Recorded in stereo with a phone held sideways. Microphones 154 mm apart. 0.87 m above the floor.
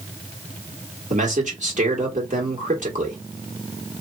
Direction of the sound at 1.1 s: 55° right (ahead or behind).